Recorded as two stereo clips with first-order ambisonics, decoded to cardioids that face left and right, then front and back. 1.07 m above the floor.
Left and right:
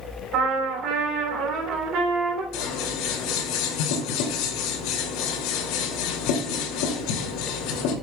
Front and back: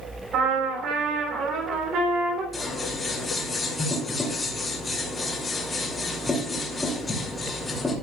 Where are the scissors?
80° left, 2.5 m.